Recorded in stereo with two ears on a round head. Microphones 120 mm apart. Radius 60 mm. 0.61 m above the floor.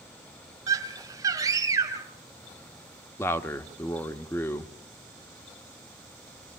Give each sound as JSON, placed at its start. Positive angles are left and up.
{"t": 0.7, "sound": "a scream", "side_deg": -25, "distance_m": 3.0}
{"t": 3.2, "sound": "a man speaking", "side_deg": 20, "distance_m": 1.1}